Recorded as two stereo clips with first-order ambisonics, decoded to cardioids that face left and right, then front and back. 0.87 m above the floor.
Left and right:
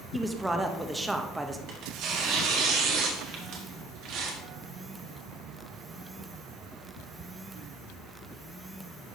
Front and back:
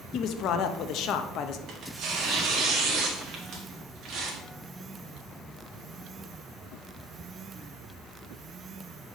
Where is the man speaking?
10° right, 0.6 m.